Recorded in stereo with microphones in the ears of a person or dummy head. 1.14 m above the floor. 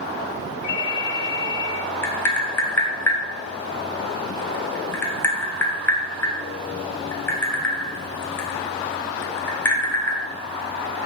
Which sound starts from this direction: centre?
Tapping, at 2.0 s.